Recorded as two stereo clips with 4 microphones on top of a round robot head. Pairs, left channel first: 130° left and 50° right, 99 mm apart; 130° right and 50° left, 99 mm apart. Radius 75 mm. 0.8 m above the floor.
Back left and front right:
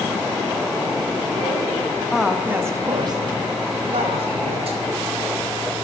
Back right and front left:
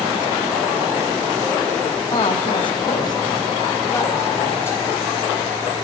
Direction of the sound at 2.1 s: 140° right.